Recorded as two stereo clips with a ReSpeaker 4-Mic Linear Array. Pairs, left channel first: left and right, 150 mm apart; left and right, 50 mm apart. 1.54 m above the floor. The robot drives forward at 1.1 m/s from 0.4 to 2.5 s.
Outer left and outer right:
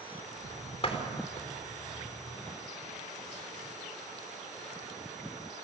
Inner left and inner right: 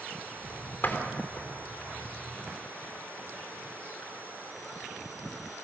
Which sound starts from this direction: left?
A door slam, at 0.8 s.